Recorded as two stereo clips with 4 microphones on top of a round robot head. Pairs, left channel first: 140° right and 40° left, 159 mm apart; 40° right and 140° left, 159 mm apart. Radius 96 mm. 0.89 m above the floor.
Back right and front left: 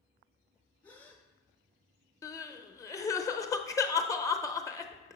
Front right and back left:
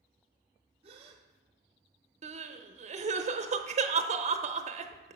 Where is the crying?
160° left, 0.7 m.